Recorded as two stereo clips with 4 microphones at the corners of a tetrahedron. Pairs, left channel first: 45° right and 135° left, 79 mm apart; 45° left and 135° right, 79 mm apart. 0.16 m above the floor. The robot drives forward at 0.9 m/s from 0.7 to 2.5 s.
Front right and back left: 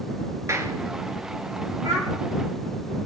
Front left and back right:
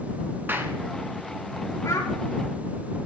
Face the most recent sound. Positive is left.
turn(degrees=105)